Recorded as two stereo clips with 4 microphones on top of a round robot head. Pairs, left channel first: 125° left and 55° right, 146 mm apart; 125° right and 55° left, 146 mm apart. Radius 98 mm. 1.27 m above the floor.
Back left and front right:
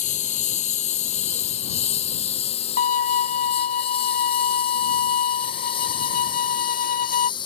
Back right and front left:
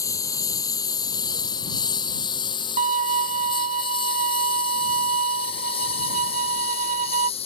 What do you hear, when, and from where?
0.0 s a lawn mower: 165° left; by 7.5 s 175° right
2.8 s a violin: 95° left